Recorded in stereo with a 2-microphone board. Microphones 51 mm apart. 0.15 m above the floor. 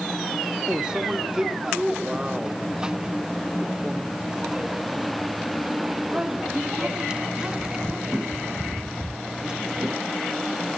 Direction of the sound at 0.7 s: 15° right (ahead or behind).